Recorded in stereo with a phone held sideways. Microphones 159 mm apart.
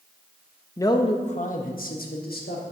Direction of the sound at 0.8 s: 15° left (ahead or behind).